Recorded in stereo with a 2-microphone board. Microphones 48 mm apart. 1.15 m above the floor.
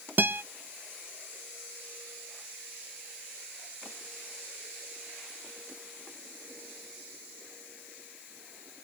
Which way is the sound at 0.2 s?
45° right (ahead or behind).